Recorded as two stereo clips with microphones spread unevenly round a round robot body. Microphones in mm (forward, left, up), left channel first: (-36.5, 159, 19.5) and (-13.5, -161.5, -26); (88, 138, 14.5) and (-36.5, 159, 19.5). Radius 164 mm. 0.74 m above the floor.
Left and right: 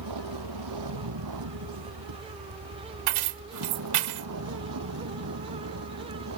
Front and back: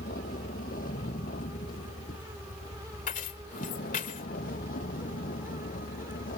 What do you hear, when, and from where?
0.0 s a vehicle: 50° right; by 6.4 s 35° right
3.1 s keys jangling: 50° right